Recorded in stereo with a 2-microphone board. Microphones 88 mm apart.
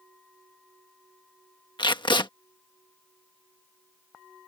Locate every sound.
1.8 s tape being pulled: 60° left (ahead or behind)